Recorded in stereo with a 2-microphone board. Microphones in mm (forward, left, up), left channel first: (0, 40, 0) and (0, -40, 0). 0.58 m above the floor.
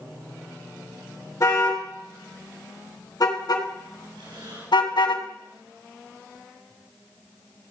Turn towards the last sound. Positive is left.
turn(degrees=-80)